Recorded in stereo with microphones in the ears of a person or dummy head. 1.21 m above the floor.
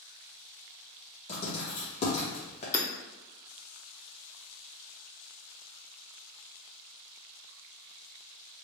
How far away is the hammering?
About 0.6 m.